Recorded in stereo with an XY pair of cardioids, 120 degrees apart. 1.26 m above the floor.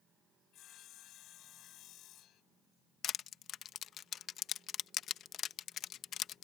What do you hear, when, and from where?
0.5 s sawing: 65° left
3.0 s crushing: 55° left